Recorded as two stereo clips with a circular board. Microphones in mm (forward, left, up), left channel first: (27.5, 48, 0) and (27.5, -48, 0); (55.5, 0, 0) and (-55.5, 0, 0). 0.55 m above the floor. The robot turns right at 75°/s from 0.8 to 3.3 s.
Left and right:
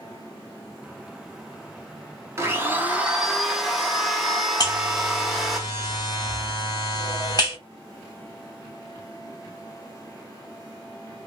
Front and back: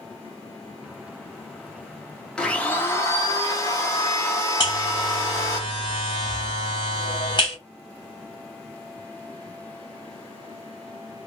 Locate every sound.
2.4 s a blender: 75° right, 0.9 m; by 5.6 s 5° right, 0.9 m
4.6 s a buzzer: 45° left, 2 m